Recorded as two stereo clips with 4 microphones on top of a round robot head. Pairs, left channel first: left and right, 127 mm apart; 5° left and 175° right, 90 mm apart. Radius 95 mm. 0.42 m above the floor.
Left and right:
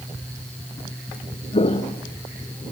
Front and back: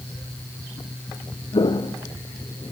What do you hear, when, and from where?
1.5 s footsteps: 45° left, 1.1 m